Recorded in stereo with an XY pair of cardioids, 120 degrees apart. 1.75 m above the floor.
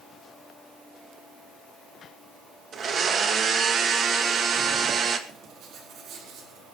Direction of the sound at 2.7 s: 45° right.